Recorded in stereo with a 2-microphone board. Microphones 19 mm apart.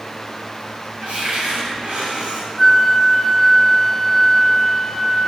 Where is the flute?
15° left (ahead or behind), 0.9 m.